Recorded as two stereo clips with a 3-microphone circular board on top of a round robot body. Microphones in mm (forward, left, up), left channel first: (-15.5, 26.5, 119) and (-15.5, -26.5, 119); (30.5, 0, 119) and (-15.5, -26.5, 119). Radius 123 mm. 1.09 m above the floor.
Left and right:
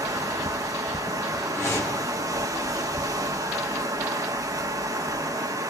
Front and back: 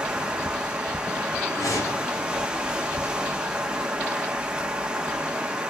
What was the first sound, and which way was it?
Running water, 75° right.